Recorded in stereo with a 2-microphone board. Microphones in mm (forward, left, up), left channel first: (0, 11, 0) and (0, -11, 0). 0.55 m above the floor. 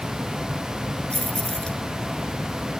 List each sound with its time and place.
1.1 s keys jangling: 40° left (ahead or behind)